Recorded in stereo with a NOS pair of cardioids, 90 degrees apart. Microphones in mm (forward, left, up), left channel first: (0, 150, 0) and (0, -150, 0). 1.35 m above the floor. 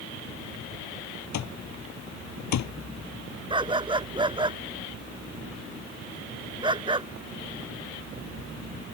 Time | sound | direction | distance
1.3 | an alarm clock | 65° left | ?
3.5 | a dog barking | 15° right | ?